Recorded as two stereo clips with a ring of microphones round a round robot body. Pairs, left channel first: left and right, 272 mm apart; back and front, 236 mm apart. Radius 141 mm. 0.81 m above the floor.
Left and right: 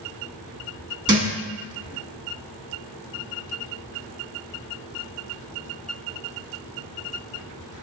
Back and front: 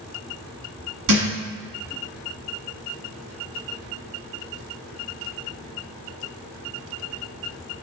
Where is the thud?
15° right, 1.0 m.